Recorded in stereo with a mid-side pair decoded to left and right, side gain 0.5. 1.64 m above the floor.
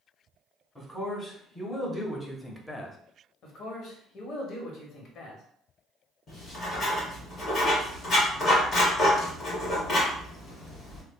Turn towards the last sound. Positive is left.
turn(degrees=40)